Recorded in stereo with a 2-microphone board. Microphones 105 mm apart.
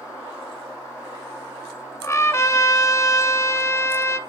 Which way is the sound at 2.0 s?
30° left (ahead or behind).